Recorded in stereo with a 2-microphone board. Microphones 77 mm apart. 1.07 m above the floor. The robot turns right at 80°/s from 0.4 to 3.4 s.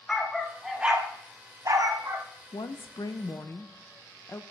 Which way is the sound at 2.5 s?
70° left.